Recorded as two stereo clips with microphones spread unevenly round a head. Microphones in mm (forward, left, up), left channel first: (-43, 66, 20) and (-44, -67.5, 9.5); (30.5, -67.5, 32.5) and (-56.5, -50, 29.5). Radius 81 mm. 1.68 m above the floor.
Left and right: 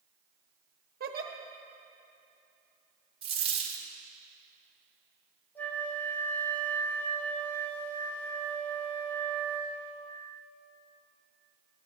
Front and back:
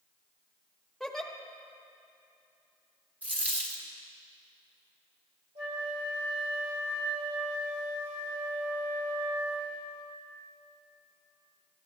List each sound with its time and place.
1.0 s a giggle: 100° right, 1.1 m
3.2 s a dropped coin: 125° right, 1.5 m
5.5 s a flute: 165° left, 2.5 m